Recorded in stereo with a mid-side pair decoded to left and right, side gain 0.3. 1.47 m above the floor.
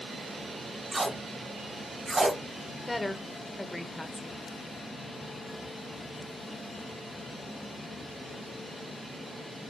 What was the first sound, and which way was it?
Tape being pulled, 30° right.